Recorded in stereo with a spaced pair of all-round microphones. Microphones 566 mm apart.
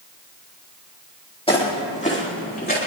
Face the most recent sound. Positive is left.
turn(degrees=15)  # may be behind; listen again after turning